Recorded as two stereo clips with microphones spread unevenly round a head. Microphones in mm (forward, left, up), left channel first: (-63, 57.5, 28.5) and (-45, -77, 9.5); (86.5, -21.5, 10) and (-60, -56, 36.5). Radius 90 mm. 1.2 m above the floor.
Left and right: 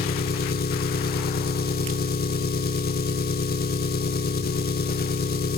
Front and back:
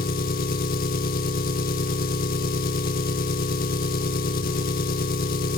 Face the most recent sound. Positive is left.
turn(degrees=60)